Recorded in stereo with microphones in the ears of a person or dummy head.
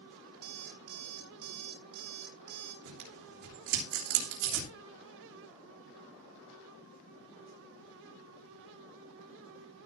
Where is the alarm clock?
55° right (ahead or behind), 2 m.